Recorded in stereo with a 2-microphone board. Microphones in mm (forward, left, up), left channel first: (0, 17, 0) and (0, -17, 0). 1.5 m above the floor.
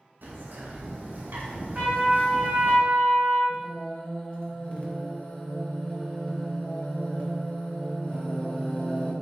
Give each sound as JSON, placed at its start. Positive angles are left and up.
{"t": 0.2, "sound": "a bird", "side_deg": -75, "distance_m": 0.6}
{"t": 1.8, "sound": "a trumpet", "side_deg": -40, "distance_m": 1.3}
{"t": 3.5, "sound": "singing", "side_deg": 30, "distance_m": 0.7}